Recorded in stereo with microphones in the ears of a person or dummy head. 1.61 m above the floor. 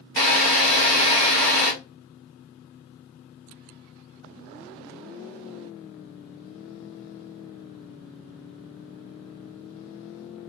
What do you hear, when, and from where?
0.2 s a drill: 50° right (ahead or behind), 1.6 m